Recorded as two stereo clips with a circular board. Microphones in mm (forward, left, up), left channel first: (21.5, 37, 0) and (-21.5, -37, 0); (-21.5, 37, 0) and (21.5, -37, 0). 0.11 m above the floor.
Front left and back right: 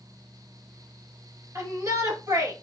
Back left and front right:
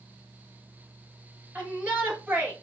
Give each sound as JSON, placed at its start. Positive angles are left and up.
{"t": 1.6, "sound": "a shout", "azimuth_deg": -120, "distance_m": 1.9}